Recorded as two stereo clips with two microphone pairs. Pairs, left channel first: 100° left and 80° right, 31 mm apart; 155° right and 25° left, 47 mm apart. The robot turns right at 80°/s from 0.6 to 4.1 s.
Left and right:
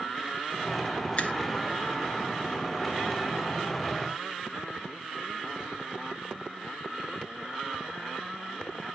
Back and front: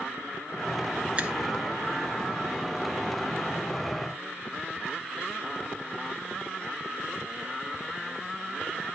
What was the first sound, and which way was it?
A finger snap, 75° left.